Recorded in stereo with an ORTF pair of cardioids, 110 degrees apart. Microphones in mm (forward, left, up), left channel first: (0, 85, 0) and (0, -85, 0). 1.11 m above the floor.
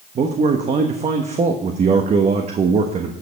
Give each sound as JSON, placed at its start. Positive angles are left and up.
{"t": 0.1, "sound": "a man speaking", "azimuth_deg": -40, "distance_m": 1.2}